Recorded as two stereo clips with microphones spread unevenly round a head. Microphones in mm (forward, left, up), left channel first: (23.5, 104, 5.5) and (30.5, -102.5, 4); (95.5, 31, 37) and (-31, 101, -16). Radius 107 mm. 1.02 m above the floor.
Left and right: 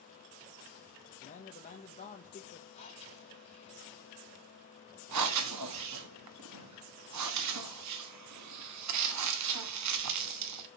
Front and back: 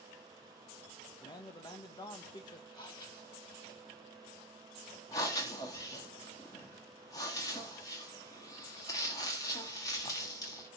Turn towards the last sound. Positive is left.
turn(degrees=-105)